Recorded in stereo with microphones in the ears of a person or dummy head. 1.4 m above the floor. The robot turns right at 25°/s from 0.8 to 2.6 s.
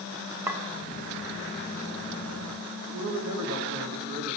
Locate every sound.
0.5 s a clink: 20° right (ahead or behind), 0.7 m
2.9 s a man speaking: 60° right (ahead or behind), 1.6 m